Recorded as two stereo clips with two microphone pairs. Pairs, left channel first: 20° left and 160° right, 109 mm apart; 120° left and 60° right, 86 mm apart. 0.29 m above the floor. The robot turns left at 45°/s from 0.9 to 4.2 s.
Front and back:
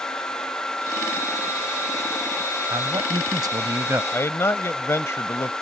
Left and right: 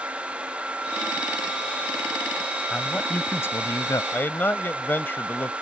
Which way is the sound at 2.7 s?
160° right.